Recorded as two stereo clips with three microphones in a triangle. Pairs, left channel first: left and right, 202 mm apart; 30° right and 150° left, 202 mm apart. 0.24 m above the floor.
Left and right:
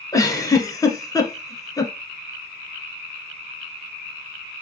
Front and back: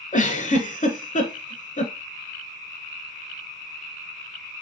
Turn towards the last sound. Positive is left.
turn(degrees=15)